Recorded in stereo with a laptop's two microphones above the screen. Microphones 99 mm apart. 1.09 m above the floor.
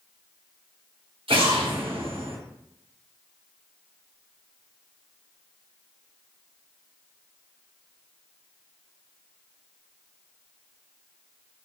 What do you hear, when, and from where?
1.3 s an explosion: 70° right (ahead or behind), 2 m